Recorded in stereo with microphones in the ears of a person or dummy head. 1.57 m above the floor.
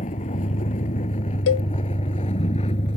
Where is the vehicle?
30° left (ahead or behind); by 3.0 s 25° left (ahead or behind).